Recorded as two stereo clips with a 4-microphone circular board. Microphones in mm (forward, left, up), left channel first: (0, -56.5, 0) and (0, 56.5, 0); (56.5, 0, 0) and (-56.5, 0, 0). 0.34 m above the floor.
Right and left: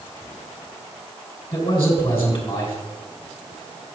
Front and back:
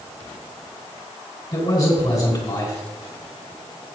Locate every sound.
1.5 s a man speaking: 30° right, 3 m